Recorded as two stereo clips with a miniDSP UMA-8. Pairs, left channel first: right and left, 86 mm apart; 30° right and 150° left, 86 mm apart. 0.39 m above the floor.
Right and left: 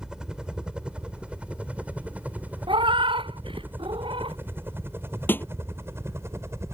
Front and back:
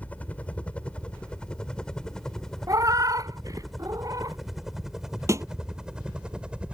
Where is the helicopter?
20° left; by 6.8 s 80° left.